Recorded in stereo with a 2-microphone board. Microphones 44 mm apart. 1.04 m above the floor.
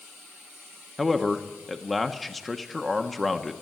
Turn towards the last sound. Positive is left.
turn(degrees=0)  # may be behind; listen again after turning